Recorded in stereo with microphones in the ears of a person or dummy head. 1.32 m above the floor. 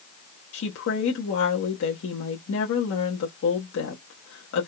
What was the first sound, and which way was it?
A woman speaking, 70° left (ahead or behind).